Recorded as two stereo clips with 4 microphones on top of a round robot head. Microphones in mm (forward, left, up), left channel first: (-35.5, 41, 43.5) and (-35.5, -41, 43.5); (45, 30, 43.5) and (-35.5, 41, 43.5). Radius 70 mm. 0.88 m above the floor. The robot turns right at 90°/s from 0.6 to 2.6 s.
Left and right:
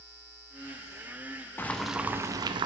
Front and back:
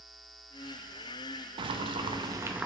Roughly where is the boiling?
Behind left.